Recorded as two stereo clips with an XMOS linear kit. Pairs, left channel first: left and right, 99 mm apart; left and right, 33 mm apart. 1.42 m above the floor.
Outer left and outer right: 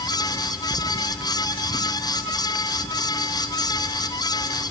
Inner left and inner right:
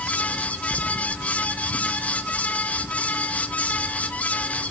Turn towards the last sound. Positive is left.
No sound to turn to.